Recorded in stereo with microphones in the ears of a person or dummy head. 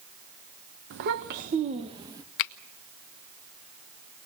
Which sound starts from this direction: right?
A child speaking, at 0.9 s.